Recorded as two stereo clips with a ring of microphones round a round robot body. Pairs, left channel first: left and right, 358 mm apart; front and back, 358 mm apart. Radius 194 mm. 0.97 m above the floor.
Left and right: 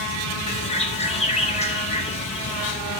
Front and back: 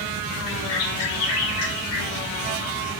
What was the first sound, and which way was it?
A bird, 15° left.